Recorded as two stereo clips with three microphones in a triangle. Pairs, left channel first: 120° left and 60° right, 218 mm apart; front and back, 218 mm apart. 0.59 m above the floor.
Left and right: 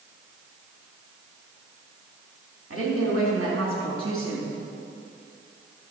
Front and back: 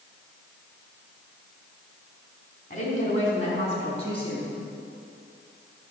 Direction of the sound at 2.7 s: 55° right.